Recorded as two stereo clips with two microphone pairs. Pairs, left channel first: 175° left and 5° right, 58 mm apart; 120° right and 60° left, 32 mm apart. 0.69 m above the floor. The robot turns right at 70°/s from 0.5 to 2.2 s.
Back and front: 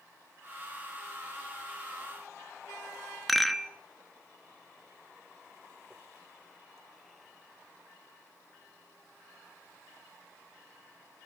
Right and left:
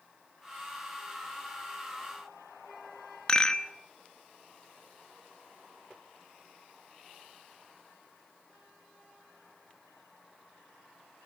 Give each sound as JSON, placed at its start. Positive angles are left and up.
{"t": 3.3, "sound": "a rattle", "azimuth_deg": -100, "distance_m": 1.1}